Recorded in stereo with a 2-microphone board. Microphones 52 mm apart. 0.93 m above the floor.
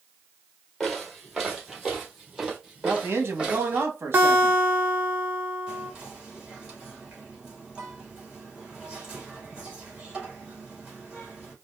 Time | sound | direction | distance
0.8 | footsteps | centre (ahead or behind) | 1.6 m
2.8 | a man speaking | 55° right (ahead or behind) | 1.2 m
4.1 | a guitar | 35° right (ahead or behind) | 0.8 m
5.7 | whispering | 15° right (ahead or behind) | 2 m